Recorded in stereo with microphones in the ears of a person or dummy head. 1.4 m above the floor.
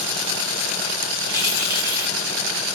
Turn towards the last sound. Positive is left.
turn(degrees=-10)  # may be behind; listen again after turning